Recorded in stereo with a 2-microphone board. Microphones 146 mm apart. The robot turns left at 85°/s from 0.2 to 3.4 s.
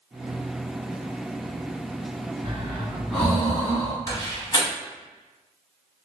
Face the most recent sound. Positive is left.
turn(degrees=30)  # may be behind; listen again after turning